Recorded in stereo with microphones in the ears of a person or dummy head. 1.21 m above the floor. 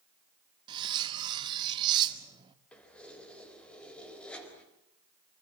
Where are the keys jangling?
10° left (ahead or behind), 4 m.